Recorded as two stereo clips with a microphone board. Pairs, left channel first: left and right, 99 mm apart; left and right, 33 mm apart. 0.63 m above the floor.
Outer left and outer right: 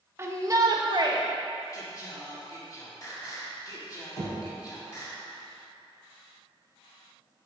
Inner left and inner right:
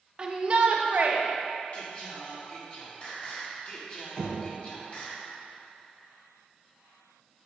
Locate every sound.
0.2 s a shout: 25° right (ahead or behind), 1.1 m; by 1.2 s 50° right (ahead or behind), 1.4 m
1.7 s singing: 40° left (ahead or behind), 1.8 m
4.2 s knocking: 40° left (ahead or behind), 3 m